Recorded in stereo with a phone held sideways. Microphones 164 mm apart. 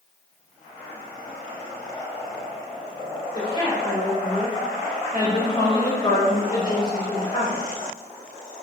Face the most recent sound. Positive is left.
turn(degrees=30)  # may be behind; listen again after turning